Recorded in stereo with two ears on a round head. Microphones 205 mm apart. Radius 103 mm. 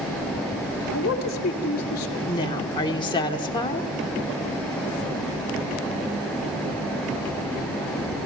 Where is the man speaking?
40° left (ahead or behind), 2.5 m.